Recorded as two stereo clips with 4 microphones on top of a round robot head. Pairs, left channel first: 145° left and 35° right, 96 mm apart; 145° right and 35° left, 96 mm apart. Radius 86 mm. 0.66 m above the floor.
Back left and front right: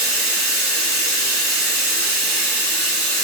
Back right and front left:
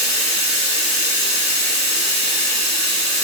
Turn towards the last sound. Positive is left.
turn(degrees=45)